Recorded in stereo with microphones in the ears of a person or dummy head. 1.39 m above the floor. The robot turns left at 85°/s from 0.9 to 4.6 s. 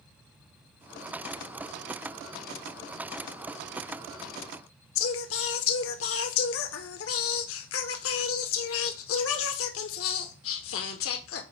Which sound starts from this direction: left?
Singing, at 5.0 s.